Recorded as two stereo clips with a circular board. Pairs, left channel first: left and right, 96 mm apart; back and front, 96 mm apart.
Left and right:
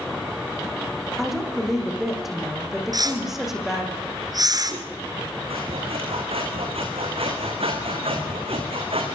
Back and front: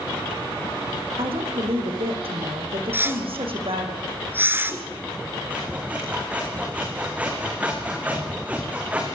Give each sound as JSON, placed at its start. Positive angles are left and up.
{"t": 1.2, "sound": "a woman speaking", "azimuth_deg": 0, "distance_m": 7.0}
{"t": 2.9, "sound": "a whoosh", "azimuth_deg": -60, "distance_m": 2.0}
{"t": 5.5, "sound": "sawing", "azimuth_deg": -75, "distance_m": 5.0}